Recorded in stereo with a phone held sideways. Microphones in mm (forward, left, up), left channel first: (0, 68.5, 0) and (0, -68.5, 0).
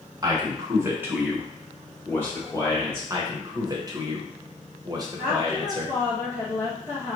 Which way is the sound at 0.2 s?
25° right (ahead or behind).